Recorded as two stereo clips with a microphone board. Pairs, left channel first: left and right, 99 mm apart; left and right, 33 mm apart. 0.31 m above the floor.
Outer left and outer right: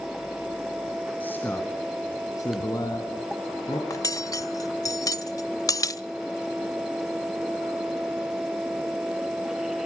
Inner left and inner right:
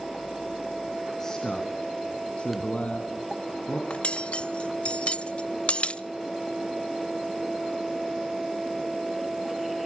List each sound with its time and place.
1.2 s a man speaking: 20° left (ahead or behind), 2.5 m; by 3.8 s 55° left (ahead or behind), 3 m
3.9 s cutlery clinking: 35° left (ahead or behind), 0.5 m